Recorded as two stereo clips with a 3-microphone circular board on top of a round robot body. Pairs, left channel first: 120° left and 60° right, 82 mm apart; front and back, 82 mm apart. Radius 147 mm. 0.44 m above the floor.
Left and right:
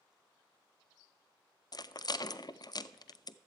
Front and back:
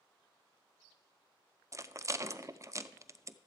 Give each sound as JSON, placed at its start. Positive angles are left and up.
{"t": 1.7, "sound": "a rattle", "azimuth_deg": 135, "distance_m": 0.5}